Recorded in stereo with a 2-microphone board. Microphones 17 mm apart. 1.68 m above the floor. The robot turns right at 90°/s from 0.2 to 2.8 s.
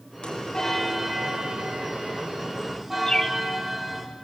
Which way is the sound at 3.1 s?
35° left (ahead or behind).